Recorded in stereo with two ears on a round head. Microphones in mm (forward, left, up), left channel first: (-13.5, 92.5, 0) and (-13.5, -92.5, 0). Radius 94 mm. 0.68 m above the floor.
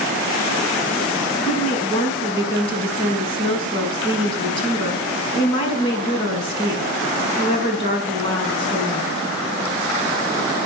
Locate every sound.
1.4 s a woman speaking: 25° left (ahead or behind), 5.5 m